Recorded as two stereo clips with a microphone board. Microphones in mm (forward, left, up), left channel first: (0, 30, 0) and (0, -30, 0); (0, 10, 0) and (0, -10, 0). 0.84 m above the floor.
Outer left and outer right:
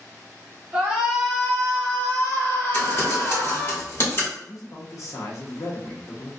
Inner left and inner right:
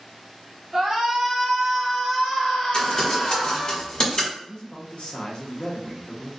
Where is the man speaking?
55° left (ahead or behind), 0.8 m.